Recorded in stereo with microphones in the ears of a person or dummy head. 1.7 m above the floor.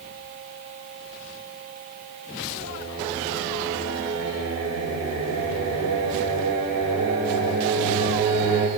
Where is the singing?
80° right, 3 m.